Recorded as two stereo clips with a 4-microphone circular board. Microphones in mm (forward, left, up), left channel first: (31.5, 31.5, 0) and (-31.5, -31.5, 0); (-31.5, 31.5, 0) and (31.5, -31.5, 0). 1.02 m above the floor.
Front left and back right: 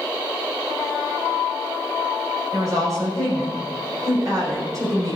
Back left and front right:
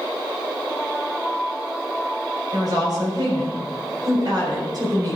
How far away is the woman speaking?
About 4 m.